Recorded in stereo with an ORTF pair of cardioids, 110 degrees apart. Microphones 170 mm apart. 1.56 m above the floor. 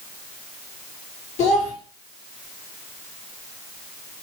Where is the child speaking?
45° left, 1.9 m.